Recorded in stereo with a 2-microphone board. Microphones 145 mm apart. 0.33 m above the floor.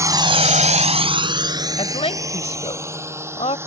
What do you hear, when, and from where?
0.0 s a drone: 20° right (ahead or behind); by 3.7 s 15° right (ahead or behind)
1.8 s a woman speaking: 45° left (ahead or behind)